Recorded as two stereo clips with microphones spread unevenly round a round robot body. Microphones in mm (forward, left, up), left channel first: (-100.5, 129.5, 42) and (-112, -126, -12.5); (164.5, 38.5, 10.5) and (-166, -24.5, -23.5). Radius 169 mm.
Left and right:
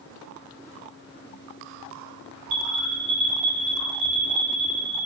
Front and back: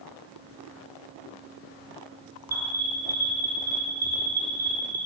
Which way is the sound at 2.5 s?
90° right.